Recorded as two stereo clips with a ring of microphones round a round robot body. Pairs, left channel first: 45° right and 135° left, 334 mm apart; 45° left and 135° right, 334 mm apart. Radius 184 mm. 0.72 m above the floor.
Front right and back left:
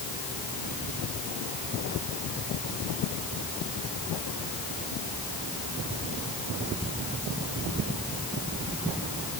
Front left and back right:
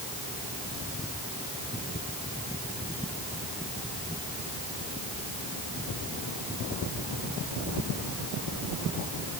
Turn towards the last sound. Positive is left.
No sound to turn to.